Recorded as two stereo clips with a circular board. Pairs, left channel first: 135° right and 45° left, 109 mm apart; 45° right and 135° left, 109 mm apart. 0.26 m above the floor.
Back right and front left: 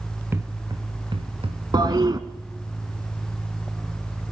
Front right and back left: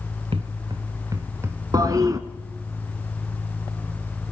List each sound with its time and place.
0.3 s footsteps: 110° left, 1.1 m; by 1.6 s 70° left, 1.9 m
1.7 s a toilet flushing: 85° left, 1.2 m